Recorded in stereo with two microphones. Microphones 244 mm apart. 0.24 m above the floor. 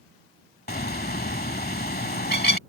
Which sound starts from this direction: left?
A bird, at 0.7 s.